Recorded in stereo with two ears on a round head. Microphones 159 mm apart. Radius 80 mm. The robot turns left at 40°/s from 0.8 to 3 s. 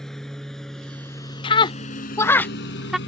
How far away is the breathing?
I don't hear breathing.